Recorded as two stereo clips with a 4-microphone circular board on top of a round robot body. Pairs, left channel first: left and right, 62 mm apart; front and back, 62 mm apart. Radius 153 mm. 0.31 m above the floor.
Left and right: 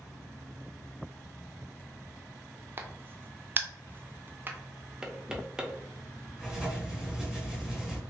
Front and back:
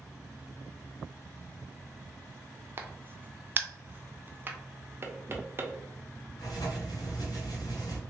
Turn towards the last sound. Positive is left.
turn(degrees=-5)